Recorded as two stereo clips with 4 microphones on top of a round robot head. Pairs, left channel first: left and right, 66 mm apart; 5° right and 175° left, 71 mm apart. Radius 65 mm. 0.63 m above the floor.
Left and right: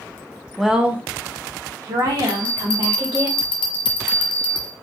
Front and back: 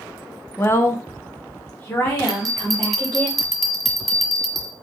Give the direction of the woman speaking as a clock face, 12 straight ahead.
12 o'clock.